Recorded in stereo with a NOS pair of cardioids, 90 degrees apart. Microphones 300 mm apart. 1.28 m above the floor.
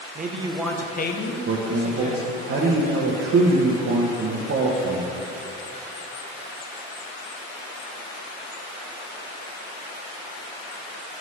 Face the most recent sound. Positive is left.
turn(degrees=-45)